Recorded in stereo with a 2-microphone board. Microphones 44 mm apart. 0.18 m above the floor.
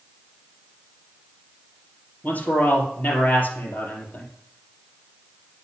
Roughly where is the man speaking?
Left.